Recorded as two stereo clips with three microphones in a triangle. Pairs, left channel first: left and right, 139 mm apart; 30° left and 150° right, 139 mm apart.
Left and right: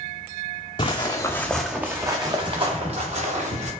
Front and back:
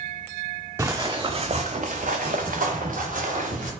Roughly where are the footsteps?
Behind left.